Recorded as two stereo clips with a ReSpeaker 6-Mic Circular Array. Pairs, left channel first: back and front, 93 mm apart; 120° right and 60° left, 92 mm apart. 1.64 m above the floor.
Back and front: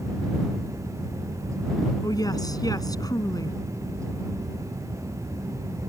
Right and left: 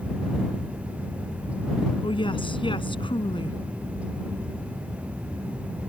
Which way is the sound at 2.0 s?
135° right.